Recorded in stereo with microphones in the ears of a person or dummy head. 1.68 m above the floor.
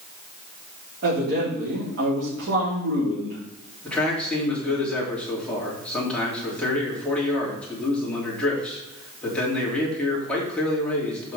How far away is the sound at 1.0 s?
About 4 m.